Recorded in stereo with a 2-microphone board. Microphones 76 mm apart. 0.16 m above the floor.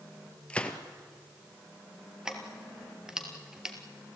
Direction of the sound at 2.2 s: 10° right (ahead or behind).